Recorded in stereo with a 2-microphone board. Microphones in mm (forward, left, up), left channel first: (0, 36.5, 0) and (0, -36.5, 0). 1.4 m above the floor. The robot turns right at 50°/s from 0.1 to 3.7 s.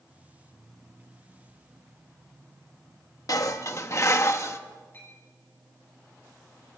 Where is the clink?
30° left (ahead or behind), 9 m.